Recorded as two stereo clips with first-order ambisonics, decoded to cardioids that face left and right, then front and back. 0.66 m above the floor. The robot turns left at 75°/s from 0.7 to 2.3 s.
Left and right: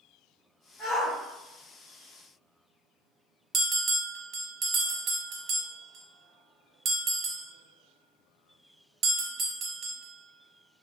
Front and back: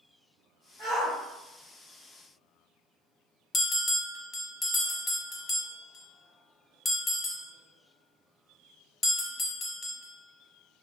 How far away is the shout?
About 1.6 m.